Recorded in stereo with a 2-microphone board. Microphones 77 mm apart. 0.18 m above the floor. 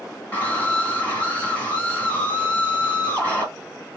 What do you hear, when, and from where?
0.3 s a scream: 20° left (ahead or behind), 1.7 m